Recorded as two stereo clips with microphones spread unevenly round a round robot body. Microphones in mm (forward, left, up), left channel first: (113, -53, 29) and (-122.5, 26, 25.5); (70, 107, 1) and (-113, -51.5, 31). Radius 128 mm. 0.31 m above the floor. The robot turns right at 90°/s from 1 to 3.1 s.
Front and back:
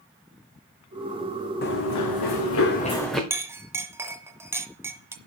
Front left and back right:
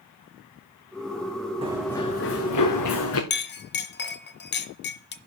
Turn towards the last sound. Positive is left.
turn(degrees=80)